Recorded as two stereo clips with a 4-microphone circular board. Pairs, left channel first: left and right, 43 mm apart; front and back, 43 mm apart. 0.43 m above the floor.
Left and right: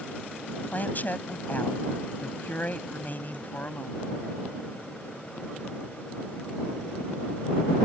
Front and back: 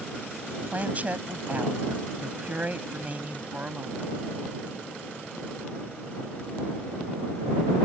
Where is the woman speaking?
130° left.